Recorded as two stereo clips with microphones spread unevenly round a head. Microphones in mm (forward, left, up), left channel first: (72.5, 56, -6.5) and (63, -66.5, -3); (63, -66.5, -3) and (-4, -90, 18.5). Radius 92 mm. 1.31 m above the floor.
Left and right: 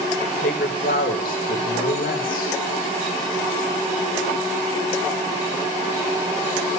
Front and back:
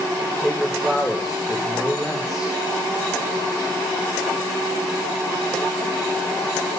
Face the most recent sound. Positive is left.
turn(degrees=110)